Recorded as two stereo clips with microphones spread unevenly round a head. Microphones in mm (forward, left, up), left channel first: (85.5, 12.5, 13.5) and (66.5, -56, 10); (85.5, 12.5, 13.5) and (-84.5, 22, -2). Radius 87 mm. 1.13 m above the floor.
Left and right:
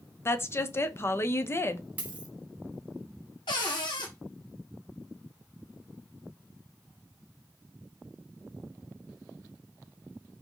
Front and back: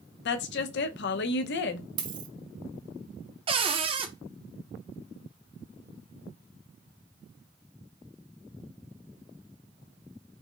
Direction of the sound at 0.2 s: 20° left.